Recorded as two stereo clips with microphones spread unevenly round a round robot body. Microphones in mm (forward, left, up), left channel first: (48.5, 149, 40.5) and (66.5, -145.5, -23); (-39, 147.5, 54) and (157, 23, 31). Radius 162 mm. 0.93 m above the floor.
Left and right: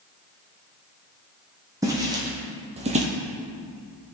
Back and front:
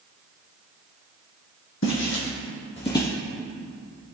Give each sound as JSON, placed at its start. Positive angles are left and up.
{"t": 1.8, "sound": "footsteps", "azimuth_deg": -170, "distance_m": 1.9}